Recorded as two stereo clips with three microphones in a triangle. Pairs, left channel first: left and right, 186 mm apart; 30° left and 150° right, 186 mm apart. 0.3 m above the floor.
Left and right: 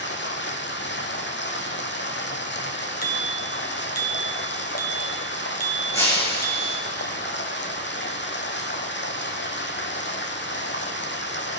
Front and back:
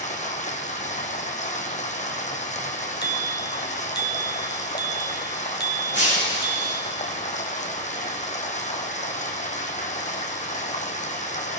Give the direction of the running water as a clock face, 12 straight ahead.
9 o'clock.